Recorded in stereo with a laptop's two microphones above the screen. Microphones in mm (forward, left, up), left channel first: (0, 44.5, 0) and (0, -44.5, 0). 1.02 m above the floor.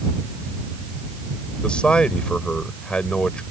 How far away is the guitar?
No guitar in this recording.